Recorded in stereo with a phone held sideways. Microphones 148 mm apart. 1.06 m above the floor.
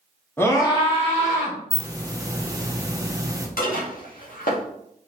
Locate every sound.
0.4 s a scream: 15° left (ahead or behind), 1.2 m; by 1.6 s 50° left (ahead or behind), 2 m
1.7 s a hiss: 25° right (ahead or behind), 0.6 m
3.6 s dishes clattering: 70° left (ahead or behind), 1.3 m